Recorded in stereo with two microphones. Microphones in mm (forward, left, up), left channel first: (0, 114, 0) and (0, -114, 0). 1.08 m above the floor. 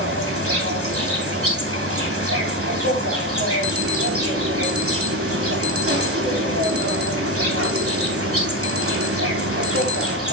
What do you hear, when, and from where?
0.0 s an insect: 75° right (ahead or behind), 3 m
3.6 s an alarm: 80° right, 2 m